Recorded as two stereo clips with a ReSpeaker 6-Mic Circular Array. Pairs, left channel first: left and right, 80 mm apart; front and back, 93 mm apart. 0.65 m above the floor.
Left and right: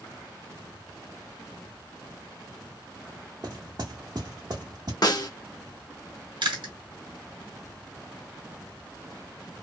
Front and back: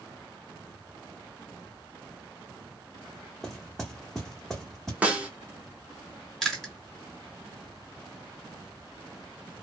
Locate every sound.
3.4 s knocking: 85° right, 1.2 m
5.0 s a snare drum: 110° left, 0.8 m
6.4 s chewing: 90° right, 1.3 m